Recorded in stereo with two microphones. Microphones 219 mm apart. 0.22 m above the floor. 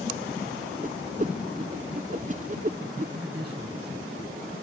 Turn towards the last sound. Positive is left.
turn(degrees=-35)  # may be behind; listen again after turning